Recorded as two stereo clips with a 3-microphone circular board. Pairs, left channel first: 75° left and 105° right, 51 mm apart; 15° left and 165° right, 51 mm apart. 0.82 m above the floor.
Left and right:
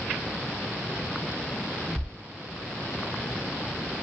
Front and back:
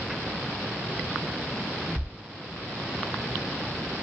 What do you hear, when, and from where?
2.0 s a thud: 75° right, 1.3 m